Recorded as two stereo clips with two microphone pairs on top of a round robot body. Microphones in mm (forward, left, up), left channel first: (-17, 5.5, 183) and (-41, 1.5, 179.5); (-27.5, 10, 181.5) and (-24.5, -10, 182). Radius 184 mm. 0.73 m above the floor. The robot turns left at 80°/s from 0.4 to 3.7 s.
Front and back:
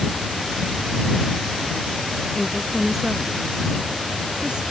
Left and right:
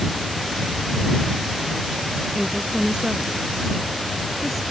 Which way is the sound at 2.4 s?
65° right.